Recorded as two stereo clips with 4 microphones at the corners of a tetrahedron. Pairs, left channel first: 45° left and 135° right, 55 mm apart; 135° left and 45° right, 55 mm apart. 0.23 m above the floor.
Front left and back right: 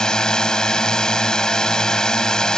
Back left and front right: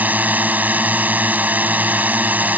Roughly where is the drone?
Ahead.